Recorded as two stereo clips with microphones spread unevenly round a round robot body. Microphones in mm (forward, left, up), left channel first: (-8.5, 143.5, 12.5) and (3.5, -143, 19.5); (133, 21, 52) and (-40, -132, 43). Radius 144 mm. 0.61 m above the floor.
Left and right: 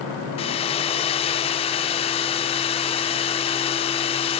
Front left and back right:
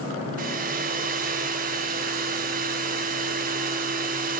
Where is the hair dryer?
165° left, 0.6 m.